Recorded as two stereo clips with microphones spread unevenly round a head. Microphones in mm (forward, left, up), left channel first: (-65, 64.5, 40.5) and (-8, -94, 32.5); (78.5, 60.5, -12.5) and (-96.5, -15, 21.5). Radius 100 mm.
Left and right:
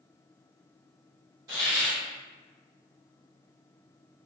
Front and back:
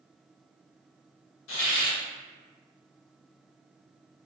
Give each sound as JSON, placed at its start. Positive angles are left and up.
{"t": 1.5, "sound": "a hiss", "azimuth_deg": 0, "distance_m": 1.1}